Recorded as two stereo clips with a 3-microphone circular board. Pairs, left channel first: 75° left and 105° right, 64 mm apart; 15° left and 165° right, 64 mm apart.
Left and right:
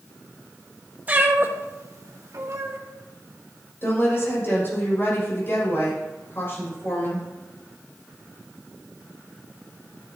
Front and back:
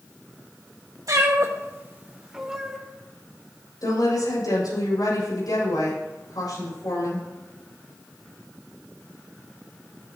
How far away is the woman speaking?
About 6 m.